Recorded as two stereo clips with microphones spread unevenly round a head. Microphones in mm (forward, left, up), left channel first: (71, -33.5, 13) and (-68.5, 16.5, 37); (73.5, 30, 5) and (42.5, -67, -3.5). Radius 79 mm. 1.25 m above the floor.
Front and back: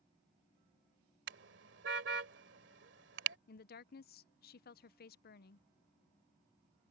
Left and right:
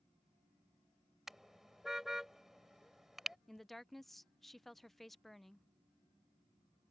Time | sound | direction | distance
1.3 | a car horn | 165° left | ?
3.5 | a woman speaking | 15° right | ?